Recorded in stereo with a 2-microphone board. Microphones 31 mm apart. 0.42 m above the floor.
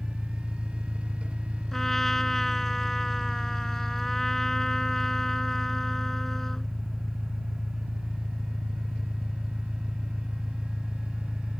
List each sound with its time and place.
0.0 s an engine running: 5° left (ahead or behind)
1.7 s a trumpet: 10° left (ahead or behind)